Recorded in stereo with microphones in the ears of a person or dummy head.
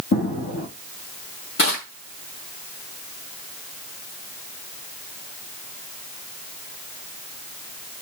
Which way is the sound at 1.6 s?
60° left (ahead or behind).